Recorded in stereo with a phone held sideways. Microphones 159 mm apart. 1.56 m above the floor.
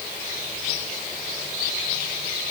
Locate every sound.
Only background noise.